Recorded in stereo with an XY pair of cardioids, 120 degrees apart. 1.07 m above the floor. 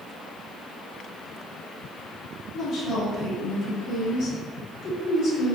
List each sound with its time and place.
2.5 s a woman speaking: 65° left, 1.2 m